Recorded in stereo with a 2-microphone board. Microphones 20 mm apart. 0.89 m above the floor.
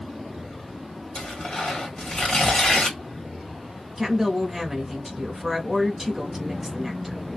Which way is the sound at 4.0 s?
10° right (ahead or behind).